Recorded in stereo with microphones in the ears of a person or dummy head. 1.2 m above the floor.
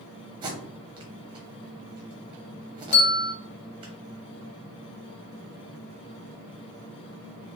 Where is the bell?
50° left (ahead or behind), 0.5 m.